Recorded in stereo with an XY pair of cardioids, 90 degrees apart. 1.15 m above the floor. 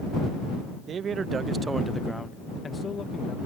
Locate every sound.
0.9 s a man speaking: 65° right; by 3.4 s 55° left